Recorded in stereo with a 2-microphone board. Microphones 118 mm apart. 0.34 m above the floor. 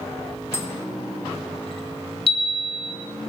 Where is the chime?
50° left (ahead or behind), 1.7 m.